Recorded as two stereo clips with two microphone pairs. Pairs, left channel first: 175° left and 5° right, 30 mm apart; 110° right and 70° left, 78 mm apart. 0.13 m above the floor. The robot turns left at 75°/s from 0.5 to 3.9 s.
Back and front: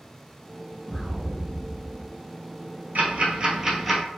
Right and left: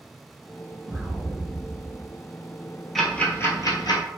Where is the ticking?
20° right, 0.8 m; by 4.0 s 90° right, 0.8 m.